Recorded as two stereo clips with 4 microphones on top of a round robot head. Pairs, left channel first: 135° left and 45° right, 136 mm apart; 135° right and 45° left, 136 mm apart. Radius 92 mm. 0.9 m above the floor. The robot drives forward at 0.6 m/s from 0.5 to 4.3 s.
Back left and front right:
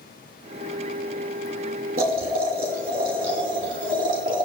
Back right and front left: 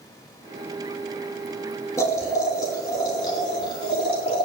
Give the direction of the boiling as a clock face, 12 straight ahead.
2 o'clock.